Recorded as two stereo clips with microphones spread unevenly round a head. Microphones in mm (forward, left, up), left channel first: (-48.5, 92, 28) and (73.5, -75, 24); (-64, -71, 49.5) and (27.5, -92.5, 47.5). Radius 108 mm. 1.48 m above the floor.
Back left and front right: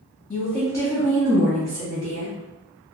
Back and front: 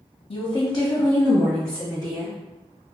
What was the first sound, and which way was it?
A woman speaking, 160° right.